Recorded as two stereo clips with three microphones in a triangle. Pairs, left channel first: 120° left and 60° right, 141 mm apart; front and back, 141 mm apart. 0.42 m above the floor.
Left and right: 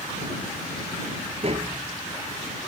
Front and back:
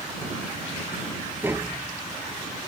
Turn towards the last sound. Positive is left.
turn(degrees=-105)